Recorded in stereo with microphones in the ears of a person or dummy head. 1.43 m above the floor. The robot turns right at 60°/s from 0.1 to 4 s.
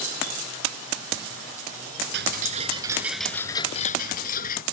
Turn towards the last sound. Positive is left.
turn(degrees=50)